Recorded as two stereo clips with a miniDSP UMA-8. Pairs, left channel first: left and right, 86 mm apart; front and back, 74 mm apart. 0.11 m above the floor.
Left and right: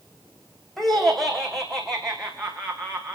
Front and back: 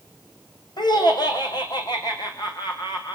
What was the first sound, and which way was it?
Laughter, 5° left.